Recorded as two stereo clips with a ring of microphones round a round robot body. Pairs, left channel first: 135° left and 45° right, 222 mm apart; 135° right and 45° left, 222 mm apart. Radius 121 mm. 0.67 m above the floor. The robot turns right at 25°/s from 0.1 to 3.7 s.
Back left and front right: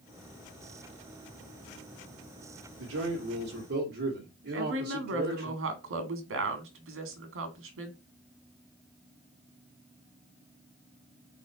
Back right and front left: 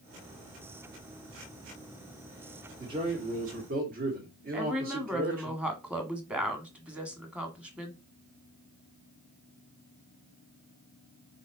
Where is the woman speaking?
40° right, 1.9 m.